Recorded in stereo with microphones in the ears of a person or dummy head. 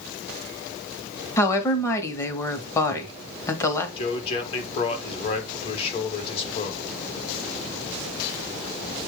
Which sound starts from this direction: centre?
A woman speaking, at 1.4 s.